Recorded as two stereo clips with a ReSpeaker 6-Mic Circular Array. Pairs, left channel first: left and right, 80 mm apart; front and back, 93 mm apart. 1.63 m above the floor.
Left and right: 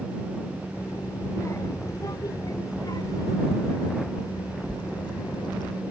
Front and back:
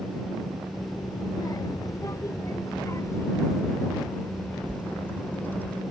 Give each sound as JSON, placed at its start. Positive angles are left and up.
{"t": 0.7, "sound": "a child speaking", "azimuth_deg": 40}